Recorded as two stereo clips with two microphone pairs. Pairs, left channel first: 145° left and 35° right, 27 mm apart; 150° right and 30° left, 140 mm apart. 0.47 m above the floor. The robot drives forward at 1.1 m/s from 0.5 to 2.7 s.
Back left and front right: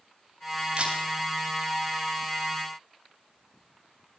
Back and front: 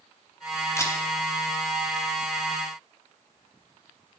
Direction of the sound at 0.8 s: 80° right.